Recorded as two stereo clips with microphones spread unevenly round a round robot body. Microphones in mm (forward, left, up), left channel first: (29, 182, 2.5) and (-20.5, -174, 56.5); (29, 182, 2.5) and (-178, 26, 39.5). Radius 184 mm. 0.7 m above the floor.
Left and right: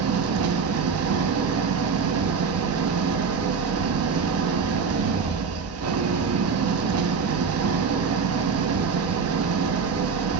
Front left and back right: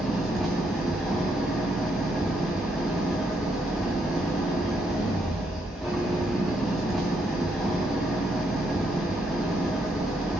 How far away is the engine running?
About 0.8 m.